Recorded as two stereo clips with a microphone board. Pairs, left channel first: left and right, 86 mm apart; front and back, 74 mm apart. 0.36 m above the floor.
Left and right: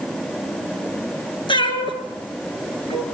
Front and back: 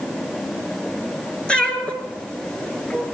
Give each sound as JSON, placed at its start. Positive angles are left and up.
{"t": 1.5, "sound": "a cat meowing", "azimuth_deg": 80, "distance_m": 2.5}